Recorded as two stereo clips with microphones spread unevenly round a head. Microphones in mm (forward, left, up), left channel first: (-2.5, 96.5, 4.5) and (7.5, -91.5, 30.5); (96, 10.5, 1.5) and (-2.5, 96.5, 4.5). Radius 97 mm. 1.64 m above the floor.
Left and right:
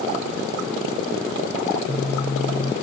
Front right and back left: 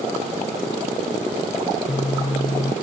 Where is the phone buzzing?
20° left, 0.5 m.